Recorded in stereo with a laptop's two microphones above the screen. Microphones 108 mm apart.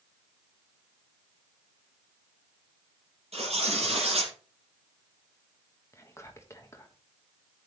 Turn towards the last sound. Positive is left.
turn(degrees=25)  # may be behind; listen again after turning